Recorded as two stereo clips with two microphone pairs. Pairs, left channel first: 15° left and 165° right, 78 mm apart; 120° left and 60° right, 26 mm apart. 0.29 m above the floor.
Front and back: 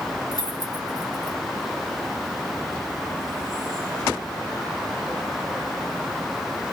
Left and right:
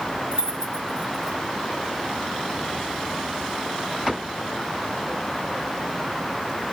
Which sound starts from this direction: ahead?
Keys jangling, at 0.3 s.